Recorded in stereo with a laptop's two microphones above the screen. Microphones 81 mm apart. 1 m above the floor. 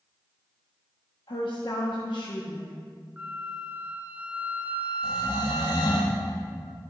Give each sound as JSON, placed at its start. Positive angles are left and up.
{"t": 1.3, "sound": "a woman speaking", "side_deg": 80, "distance_m": 1.2}
{"t": 3.2, "sound": "a flute", "side_deg": -20, "distance_m": 0.5}
{"t": 5.0, "sound": "snoring", "side_deg": 55, "distance_m": 1.5}